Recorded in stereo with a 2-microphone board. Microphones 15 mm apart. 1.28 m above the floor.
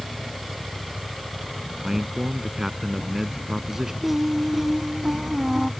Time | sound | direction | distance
1.8 | a man speaking | 20° right (ahead or behind) | ?
4.0 | singing | 10° right (ahead or behind) | ?